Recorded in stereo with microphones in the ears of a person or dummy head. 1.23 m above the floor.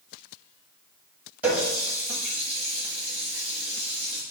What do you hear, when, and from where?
1.4 s a running tap: 5° right (ahead or behind), 1.2 m